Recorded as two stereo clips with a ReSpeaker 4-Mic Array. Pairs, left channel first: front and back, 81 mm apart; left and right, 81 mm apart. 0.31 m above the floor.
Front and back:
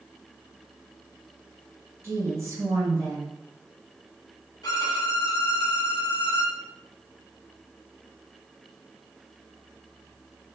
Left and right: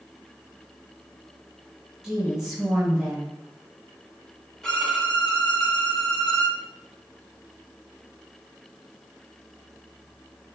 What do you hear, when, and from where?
2.0 s a woman speaking: 170° right, 1.1 m
4.6 s a violin: 10° left, 0.7 m